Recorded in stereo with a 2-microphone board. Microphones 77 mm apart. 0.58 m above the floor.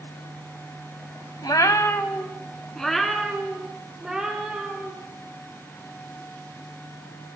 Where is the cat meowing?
65° left (ahead or behind), 0.8 m; by 4.9 s 10° right (ahead or behind), 4 m.